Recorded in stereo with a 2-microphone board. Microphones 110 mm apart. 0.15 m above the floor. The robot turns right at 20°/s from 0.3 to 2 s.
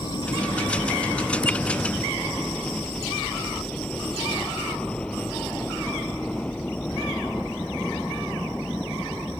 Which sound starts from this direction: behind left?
A helicopter, at 0.0 s.